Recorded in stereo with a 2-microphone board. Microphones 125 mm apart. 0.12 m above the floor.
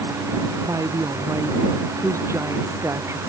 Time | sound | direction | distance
0.7 | a woman speaking | 25° right (ahead or behind) | ?